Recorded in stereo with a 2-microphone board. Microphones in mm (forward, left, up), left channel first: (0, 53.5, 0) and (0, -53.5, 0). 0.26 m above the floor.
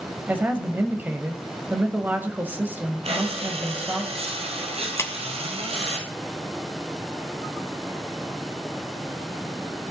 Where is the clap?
30° left (ahead or behind), 1.4 m.